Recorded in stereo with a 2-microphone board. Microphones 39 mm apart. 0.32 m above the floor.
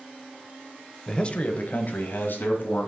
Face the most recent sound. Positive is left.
turn(degrees=65)  # may be behind; listen again after turning